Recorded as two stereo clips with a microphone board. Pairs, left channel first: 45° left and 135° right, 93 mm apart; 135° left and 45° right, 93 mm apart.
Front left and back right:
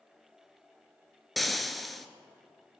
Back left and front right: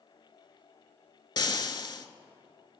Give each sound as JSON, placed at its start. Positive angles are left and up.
{"t": 1.4, "sound": "frying", "azimuth_deg": 135, "distance_m": 0.5}